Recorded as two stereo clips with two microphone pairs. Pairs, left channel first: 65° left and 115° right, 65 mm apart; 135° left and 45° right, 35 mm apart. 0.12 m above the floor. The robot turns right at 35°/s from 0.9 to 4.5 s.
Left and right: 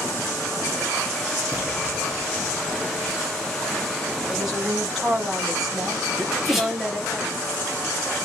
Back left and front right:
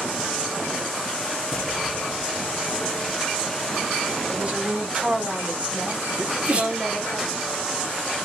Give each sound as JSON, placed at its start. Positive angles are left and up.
{"t": 1.5, "sound": "an explosion", "azimuth_deg": 180, "distance_m": 1.0}
{"t": 4.3, "sound": "a woman speaking", "azimuth_deg": -35, "distance_m": 2.0}
{"t": 6.2, "sound": "a sneeze", "azimuth_deg": -35, "distance_m": 1.7}